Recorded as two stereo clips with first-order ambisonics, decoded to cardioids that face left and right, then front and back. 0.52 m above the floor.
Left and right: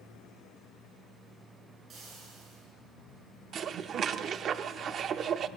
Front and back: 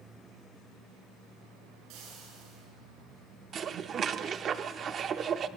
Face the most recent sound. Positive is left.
turn(degrees=-135)